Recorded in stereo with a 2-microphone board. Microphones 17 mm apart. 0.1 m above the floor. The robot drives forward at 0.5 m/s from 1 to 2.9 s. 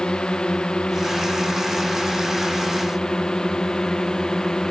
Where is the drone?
75° left (ahead or behind); by 4.7 s 45° left (ahead or behind).